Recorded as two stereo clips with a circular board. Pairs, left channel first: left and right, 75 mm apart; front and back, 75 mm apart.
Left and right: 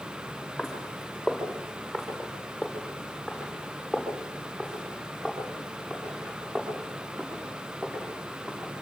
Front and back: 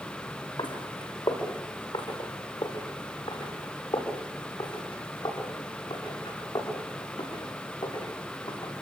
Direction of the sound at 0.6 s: 5° right.